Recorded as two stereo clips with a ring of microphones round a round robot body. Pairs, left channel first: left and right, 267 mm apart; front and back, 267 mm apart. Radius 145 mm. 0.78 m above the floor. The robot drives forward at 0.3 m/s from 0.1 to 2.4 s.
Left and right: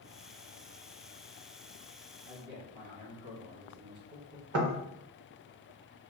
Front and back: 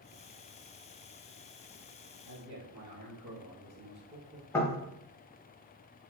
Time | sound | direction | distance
2.2 | a man speaking | 115° right | 1.0 m
4.5 | knocking | 80° right | 0.6 m